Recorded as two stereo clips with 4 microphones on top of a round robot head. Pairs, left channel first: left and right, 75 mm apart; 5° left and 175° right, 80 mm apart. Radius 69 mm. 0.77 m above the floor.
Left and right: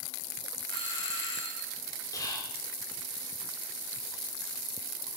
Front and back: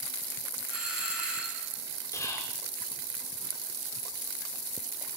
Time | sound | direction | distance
0.7 | a doorbell | 110° left | 6 m
2.1 | whispering | 55° left | 3 m